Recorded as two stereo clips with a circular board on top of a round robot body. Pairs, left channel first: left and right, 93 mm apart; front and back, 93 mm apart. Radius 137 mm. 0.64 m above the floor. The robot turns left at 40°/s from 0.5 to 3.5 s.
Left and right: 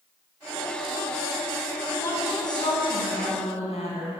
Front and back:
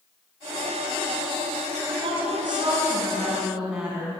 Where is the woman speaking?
165° left, 6.5 m; by 4.1 s 100° left, 6.5 m.